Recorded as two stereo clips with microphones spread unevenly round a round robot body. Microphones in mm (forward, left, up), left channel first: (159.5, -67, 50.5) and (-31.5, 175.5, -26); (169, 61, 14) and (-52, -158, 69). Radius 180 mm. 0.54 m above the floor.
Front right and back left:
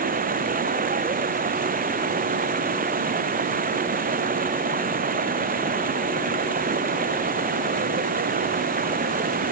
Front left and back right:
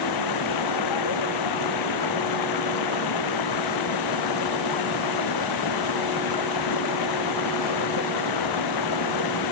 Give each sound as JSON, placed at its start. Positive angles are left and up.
{"t": 0.0, "sound": "running water", "azimuth_deg": 65}